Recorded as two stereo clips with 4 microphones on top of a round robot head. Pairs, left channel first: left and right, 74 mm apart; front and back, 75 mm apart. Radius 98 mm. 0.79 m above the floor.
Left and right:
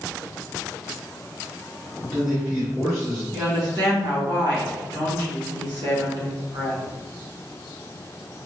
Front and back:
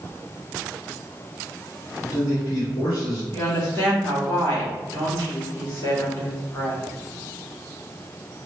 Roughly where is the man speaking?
Ahead.